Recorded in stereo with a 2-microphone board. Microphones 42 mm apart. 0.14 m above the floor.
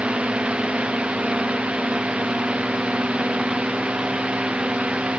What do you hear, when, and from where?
0.0 s a drone: 30° right (ahead or behind)